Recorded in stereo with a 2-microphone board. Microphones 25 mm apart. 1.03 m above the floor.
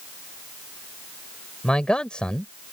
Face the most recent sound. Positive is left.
turn(degrees=45)  # may be behind; listen again after turning